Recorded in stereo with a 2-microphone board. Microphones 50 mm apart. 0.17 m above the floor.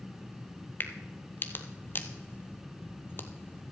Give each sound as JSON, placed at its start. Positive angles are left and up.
{"t": 0.8, "sound": "a crack", "side_deg": 40, "distance_m": 0.8}